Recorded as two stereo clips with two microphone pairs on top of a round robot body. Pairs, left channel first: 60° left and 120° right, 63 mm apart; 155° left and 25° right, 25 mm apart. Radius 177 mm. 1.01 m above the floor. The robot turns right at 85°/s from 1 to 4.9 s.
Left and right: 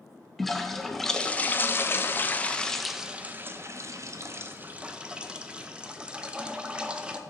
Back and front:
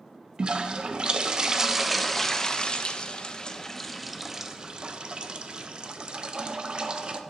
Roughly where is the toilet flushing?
Ahead.